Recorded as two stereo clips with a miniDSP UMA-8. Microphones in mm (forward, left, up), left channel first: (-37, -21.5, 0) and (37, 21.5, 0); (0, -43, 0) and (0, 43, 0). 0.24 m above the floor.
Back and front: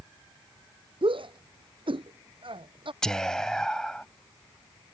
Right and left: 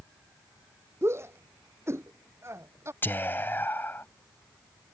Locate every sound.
1.0 s a shout: 30° left
3.0 s whispering: 80° right